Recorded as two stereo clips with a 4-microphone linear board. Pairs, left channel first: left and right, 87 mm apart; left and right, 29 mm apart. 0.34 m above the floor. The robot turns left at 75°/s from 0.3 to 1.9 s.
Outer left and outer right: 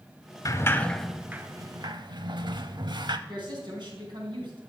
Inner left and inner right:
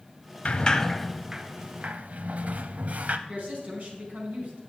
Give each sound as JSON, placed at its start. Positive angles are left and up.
{"t": 0.5, "sound": "a sliding door", "side_deg": 40, "distance_m": 0.6}
{"t": 3.3, "sound": "a woman speaking", "side_deg": -60, "distance_m": 3.5}